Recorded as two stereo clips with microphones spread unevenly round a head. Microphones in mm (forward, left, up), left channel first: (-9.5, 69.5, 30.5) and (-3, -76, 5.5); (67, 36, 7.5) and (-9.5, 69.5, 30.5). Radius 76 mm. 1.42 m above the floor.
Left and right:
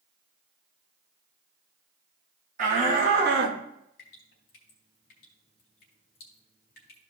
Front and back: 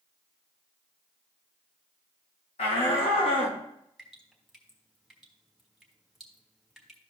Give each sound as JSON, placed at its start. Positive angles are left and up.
{"t": 2.6, "sound": "a shout", "azimuth_deg": -45, "distance_m": 2.5}
{"t": 4.0, "sound": "dripping", "azimuth_deg": 75, "distance_m": 2.5}